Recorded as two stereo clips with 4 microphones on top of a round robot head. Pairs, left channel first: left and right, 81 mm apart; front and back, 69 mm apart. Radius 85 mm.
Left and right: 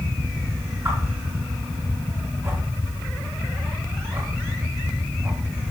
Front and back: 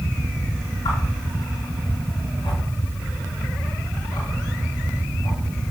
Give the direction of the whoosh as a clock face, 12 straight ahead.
1 o'clock.